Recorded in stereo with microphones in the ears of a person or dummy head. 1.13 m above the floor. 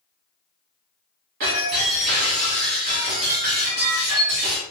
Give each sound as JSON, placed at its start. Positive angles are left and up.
{"t": 1.4, "sound": "breaking glass", "side_deg": -45, "distance_m": 1.4}